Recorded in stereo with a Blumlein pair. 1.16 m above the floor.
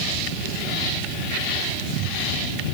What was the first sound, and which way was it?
Only background noise.